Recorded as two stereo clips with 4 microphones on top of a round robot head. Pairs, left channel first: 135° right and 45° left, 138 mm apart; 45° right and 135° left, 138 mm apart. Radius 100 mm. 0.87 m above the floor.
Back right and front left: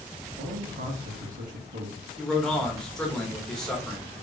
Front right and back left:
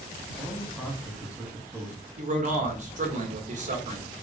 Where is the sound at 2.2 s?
140° left, 1.4 m.